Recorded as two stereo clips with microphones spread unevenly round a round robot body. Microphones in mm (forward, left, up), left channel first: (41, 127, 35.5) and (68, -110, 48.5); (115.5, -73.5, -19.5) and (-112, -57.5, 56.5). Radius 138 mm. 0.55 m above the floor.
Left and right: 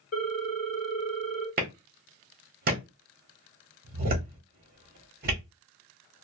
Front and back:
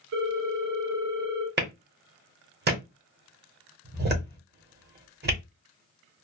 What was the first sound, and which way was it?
A ringtone, 140° left.